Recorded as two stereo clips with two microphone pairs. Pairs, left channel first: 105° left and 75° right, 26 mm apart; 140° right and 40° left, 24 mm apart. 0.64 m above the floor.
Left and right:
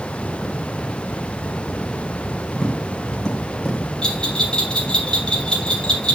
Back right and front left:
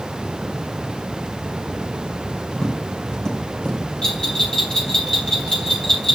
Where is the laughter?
No laughter in this recording.